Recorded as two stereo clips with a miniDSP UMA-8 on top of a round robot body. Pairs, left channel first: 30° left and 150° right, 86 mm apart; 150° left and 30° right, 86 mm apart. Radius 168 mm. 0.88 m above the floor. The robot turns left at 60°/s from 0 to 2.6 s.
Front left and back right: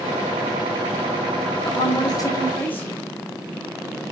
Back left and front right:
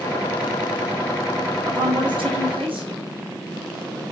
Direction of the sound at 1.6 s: 15° left.